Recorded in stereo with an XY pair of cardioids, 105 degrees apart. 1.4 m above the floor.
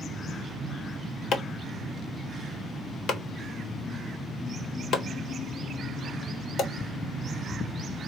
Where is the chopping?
65° left, 1.2 m.